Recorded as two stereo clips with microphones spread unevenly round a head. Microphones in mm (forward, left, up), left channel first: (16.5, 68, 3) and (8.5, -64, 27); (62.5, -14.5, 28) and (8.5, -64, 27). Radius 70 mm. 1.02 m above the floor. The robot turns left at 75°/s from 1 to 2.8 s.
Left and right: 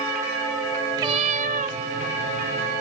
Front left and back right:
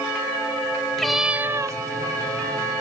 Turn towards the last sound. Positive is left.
turn(degrees=-175)